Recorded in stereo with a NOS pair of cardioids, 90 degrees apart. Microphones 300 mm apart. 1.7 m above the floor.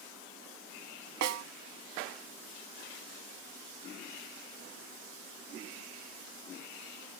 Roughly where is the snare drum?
Ahead right.